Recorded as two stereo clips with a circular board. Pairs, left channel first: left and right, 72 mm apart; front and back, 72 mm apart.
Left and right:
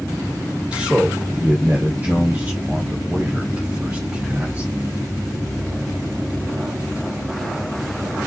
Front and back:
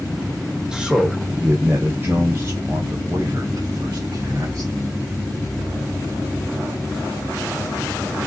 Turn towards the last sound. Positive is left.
turn(degrees=-150)